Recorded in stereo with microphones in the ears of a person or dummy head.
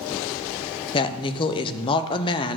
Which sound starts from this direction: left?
A woman speaking, at 0.9 s.